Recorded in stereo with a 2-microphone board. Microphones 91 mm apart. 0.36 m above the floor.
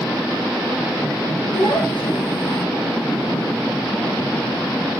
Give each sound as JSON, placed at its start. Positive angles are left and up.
{"t": 1.5, "sound": "a child speaking", "side_deg": 80, "distance_m": 4.0}